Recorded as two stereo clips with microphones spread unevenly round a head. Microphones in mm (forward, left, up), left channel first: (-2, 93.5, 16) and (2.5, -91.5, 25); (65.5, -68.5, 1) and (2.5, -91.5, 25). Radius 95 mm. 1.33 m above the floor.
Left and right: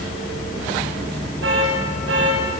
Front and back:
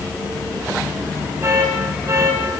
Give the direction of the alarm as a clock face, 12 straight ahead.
4 o'clock.